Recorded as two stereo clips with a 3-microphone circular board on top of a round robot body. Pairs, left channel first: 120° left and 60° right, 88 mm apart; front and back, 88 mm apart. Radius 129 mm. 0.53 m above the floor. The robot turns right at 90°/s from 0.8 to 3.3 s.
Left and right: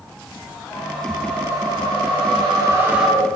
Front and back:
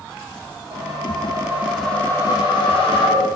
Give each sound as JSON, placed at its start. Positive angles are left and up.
{"t": 0.7, "sound": "a whoosh", "azimuth_deg": 180, "distance_m": 3.5}